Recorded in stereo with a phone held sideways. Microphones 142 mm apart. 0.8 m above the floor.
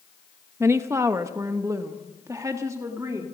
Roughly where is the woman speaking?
Centre.